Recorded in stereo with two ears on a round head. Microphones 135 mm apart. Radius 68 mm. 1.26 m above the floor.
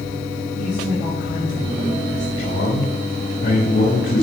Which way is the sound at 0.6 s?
40° left (ahead or behind).